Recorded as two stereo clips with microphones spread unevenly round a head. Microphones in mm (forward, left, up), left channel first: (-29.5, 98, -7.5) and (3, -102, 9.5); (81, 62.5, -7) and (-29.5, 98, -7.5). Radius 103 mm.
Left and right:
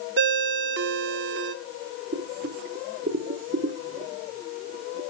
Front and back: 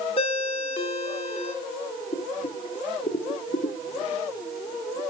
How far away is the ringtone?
About 1.5 m.